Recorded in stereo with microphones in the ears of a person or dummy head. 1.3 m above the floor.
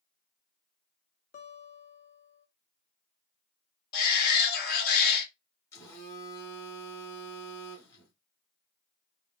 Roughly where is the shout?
Left.